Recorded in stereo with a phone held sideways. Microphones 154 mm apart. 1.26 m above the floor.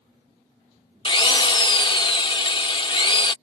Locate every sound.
1.1 s a drill: 30° left (ahead or behind)